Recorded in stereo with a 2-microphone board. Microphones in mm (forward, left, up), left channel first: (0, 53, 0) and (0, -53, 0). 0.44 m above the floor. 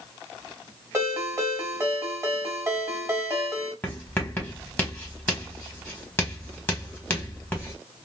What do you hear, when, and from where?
0.9 s a ringtone: 25° right (ahead or behind), 1.7 m
3.8 s writing: 20° left (ahead or behind), 1.4 m